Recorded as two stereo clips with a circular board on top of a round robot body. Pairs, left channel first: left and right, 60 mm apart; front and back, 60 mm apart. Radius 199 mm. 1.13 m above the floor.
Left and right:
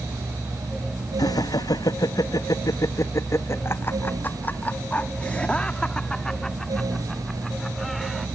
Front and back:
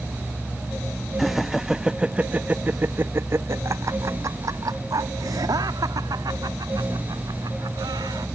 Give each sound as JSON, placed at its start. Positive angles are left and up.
{"t": 1.2, "sound": "laughter", "azimuth_deg": 90}